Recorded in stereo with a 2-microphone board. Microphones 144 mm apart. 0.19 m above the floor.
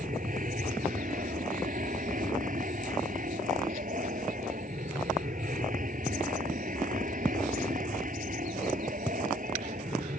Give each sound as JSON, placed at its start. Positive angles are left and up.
{"t": 0.0, "sound": "an aircraft", "side_deg": -70}